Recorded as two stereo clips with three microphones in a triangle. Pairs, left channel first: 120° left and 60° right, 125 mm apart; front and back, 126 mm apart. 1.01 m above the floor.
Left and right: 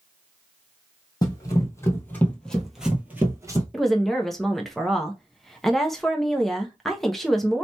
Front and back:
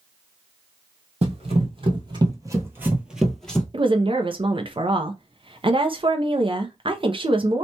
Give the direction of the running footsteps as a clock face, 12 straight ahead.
6 o'clock.